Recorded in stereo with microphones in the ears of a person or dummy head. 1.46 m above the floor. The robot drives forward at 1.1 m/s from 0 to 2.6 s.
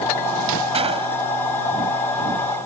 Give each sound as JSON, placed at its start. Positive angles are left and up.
{"t": 0.7, "sound": "a gunshot", "side_deg": -35}